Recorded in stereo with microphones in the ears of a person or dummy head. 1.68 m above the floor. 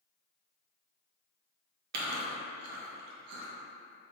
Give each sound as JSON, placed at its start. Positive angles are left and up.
{"t": 1.9, "sound": "chewing", "side_deg": -60, "distance_m": 0.9}